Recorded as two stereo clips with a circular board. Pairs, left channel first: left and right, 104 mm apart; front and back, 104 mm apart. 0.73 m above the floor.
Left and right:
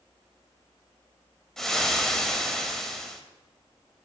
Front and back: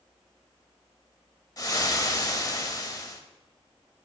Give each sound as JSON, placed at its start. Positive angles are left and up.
{"t": 1.6, "sound": "frying", "azimuth_deg": 10, "distance_m": 0.5}